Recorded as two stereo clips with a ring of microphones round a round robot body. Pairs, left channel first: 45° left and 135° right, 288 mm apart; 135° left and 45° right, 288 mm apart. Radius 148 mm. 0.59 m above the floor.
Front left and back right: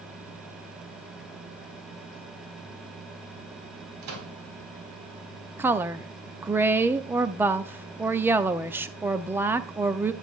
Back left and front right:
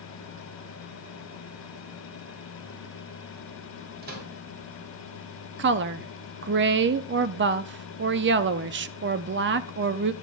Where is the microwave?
105° right, 2.5 m.